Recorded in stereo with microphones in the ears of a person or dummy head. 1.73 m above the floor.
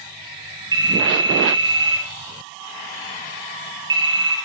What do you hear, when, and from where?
0.7 s a phone ringing: 20° right (ahead or behind), 3.5 m